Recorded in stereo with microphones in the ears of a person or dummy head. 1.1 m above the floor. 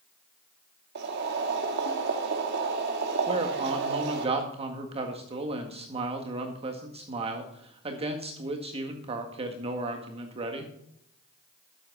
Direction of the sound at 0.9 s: 60° right (ahead or behind).